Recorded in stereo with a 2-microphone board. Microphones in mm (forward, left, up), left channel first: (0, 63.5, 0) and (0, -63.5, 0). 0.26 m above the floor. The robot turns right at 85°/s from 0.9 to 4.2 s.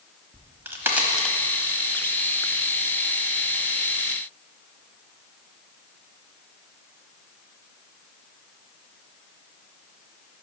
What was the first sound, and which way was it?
A crack, 20° right (ahead or behind).